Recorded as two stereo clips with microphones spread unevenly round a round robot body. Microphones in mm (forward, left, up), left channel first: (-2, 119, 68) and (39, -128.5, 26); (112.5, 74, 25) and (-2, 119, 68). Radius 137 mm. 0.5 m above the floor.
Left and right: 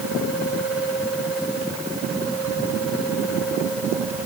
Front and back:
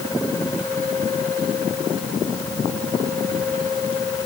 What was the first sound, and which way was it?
Only background noise.